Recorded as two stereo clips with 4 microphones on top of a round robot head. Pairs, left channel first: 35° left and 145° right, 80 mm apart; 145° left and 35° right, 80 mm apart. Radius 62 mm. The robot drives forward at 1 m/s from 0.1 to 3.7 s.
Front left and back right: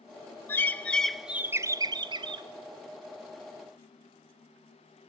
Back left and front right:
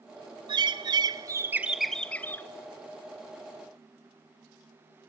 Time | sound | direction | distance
0.5 | a bird | 25° right | 1.2 m